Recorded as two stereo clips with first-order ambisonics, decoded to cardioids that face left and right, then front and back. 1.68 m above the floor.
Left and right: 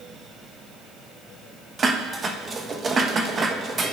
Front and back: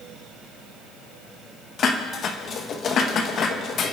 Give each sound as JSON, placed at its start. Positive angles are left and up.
{"t": 1.8, "sound": "dishes clattering", "azimuth_deg": -35, "distance_m": 1.0}